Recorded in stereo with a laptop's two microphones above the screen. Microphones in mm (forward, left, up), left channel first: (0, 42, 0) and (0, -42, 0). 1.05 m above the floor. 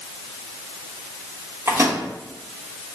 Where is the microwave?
30° right (ahead or behind), 1.1 m.